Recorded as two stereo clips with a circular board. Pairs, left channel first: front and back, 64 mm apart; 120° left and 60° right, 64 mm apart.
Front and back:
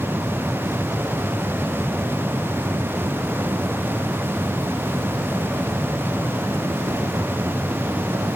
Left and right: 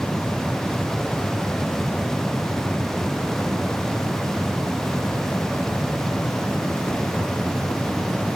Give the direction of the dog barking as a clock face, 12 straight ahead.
No dog barking in this recording.